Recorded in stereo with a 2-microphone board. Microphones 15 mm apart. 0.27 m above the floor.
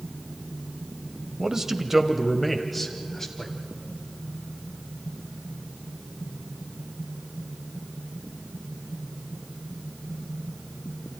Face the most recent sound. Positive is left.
turn(degrees=25)  # may be behind; listen again after turning